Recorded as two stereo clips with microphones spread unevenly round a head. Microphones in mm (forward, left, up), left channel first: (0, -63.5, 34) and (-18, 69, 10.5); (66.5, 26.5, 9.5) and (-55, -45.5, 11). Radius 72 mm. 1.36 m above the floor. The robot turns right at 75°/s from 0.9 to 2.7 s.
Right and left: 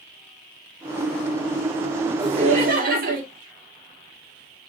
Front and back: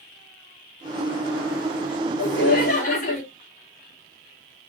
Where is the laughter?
35° left, 3.5 m; by 3.2 s 70° left, 3.5 m.